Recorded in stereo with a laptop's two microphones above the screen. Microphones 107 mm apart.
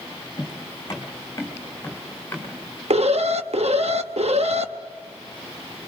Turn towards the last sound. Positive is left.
turn(degrees=-75)  # may be behind; listen again after turning